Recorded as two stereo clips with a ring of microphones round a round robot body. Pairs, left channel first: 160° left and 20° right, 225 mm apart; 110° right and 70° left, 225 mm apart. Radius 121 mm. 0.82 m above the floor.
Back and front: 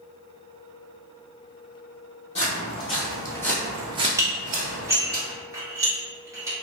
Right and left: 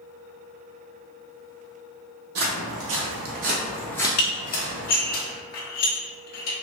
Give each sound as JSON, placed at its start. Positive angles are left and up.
{"t": 2.4, "sound": "footsteps", "azimuth_deg": 95, "distance_m": 2.0}
{"t": 4.2, "sound": "dishes clattering", "azimuth_deg": -100, "distance_m": 1.2}